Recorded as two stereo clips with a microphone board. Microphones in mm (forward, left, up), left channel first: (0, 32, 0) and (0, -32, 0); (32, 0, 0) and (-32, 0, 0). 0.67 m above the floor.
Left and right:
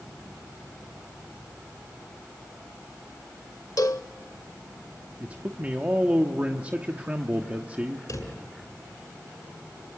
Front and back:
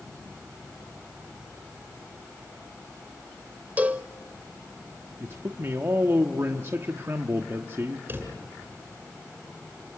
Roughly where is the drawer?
Behind left.